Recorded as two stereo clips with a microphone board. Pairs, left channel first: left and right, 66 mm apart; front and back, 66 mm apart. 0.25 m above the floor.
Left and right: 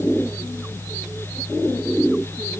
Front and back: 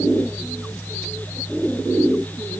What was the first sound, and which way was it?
Only background noise.